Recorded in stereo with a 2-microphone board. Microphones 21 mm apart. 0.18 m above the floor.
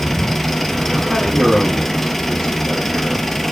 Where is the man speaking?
10° left (ahead or behind), 5.5 m.